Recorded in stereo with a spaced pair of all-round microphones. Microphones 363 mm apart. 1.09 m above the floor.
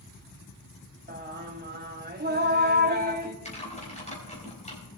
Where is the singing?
25° right (ahead or behind), 1.2 m.